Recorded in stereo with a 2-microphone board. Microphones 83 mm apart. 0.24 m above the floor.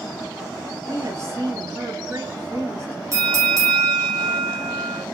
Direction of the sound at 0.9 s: 35° right (ahead or behind).